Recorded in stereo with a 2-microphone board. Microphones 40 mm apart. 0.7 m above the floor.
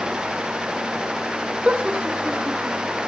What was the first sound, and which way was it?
Laughter, 25° right (ahead or behind).